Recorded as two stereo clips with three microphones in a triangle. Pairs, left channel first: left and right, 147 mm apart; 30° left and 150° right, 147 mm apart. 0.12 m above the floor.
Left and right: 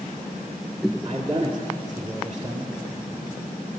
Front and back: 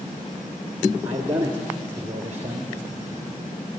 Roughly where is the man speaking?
Right.